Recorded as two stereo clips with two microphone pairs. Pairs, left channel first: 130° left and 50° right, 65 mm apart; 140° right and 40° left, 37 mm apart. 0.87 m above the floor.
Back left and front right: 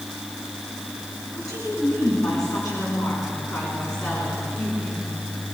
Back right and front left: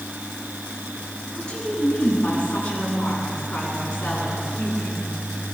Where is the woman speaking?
155° left, 9 m; by 5.1 s 165° left, 10.5 m.